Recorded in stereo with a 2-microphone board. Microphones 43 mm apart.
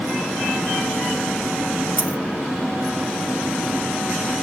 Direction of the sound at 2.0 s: 50° left (ahead or behind).